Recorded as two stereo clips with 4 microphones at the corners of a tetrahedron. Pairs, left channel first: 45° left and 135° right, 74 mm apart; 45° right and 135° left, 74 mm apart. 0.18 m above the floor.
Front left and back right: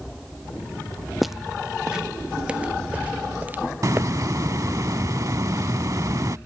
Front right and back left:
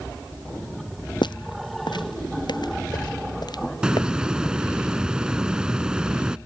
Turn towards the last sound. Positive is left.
turn(degrees=-150)